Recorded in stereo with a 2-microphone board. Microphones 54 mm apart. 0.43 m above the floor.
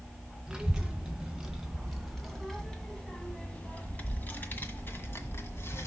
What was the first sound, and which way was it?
A child speaking, 15° right (ahead or behind).